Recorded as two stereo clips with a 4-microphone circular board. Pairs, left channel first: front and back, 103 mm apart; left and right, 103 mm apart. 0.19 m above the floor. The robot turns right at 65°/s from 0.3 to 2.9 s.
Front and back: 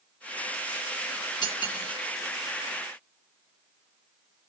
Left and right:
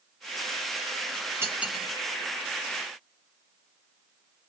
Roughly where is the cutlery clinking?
Ahead right.